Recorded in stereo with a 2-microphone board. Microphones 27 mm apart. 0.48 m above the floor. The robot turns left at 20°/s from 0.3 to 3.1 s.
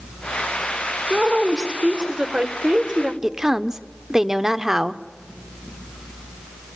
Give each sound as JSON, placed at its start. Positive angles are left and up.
{"t": 1.1, "sound": "a woman speaking", "azimuth_deg": -30, "distance_m": 1.8}
{"t": 3.2, "sound": "a woman speaking", "side_deg": -25, "distance_m": 0.9}